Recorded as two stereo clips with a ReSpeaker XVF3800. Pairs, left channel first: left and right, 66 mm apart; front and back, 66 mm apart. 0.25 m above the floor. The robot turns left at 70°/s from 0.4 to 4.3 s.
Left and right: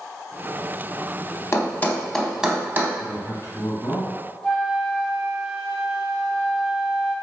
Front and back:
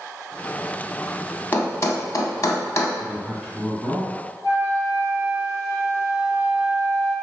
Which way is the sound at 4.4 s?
Straight ahead.